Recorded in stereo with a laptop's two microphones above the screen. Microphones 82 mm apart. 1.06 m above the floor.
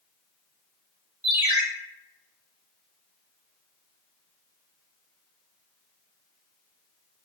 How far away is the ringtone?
About 1.9 m.